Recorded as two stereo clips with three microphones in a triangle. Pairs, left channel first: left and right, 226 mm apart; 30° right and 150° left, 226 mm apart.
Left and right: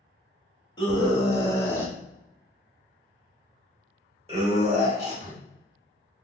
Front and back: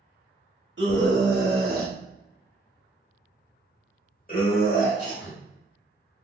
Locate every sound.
0.8 s a scream: 155° left, 1.6 m; by 5.4 s 40° right, 1.6 m